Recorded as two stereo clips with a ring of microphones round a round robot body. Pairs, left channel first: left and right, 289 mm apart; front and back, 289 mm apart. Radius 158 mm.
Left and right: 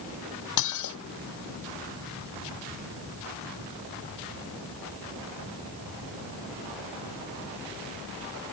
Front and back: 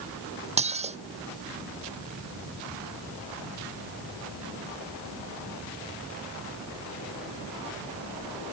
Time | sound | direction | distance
0.6 | dishes clattering | 110° left | ?